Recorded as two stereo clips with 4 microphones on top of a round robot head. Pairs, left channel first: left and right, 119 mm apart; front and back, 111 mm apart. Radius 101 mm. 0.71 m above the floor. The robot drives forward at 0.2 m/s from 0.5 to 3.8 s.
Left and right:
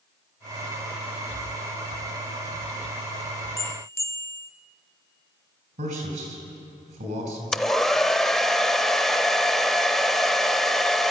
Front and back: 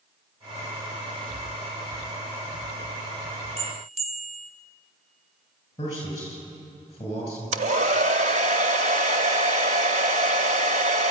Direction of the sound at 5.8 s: 65° right.